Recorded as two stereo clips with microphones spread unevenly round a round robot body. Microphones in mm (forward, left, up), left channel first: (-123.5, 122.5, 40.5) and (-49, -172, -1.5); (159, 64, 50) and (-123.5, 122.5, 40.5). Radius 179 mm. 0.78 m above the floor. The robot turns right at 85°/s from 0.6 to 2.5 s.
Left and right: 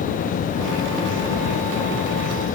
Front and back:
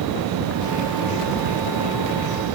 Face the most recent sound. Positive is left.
No sound to turn to.